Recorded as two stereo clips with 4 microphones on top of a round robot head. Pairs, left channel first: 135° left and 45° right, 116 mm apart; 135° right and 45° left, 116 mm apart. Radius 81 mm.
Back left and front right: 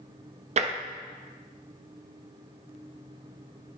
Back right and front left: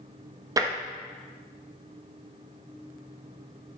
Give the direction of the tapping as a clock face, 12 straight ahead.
1 o'clock.